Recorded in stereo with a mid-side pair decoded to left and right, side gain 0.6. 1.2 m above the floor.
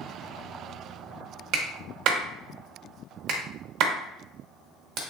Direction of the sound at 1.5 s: 60° right.